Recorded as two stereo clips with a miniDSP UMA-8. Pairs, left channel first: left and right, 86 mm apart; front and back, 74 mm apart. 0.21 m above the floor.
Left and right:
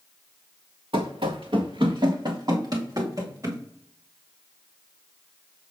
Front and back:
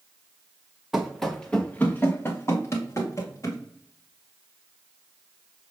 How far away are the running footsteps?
About 1.1 m.